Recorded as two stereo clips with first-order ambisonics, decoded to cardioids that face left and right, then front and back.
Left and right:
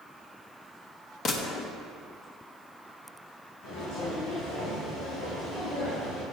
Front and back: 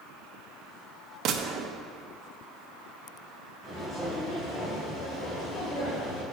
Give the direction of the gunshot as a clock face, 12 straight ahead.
7 o'clock.